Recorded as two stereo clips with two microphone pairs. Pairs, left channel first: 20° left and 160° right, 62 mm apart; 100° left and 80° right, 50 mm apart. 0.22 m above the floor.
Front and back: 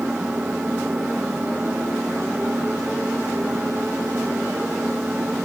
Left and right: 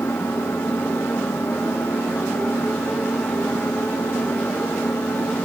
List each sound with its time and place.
0.0 s an engine running: 125° left